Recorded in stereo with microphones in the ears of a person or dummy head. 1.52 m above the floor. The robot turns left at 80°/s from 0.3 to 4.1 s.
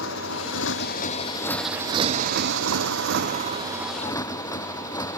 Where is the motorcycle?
115° left; by 5.2 s 170° left.